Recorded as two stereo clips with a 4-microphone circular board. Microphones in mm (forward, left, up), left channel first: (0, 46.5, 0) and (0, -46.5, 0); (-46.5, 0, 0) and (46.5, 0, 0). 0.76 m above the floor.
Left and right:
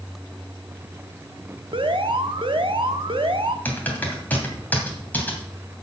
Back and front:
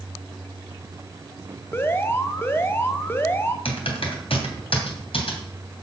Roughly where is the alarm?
Behind right.